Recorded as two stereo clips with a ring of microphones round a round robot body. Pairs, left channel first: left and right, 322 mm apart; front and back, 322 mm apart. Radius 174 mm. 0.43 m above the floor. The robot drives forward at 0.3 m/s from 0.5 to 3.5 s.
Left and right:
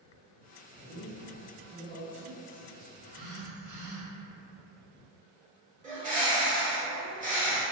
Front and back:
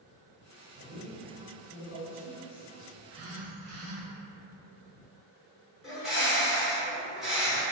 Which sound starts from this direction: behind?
A man speaking, at 0.8 s.